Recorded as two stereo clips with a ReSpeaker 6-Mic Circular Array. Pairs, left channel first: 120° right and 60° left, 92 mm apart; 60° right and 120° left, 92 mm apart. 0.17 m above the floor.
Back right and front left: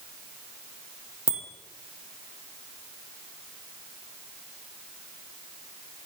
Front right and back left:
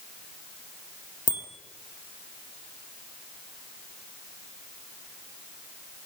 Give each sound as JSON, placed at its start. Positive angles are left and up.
{"t": 1.3, "sound": "a bicycle bell", "azimuth_deg": -20, "distance_m": 4.0}